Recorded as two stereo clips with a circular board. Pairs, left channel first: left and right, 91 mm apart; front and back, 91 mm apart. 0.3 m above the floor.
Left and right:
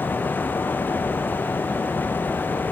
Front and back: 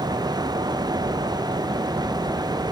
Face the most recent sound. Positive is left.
No sound to turn to.